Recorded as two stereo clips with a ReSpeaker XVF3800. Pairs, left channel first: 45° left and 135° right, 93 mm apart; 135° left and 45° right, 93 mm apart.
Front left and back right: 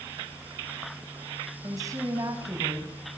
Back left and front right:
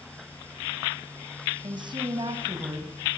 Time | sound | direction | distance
1.6 | a woman speaking | 80° right | 5 m